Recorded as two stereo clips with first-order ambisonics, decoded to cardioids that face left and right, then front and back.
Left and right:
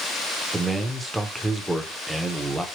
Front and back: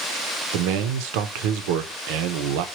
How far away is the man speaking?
About 0.7 m.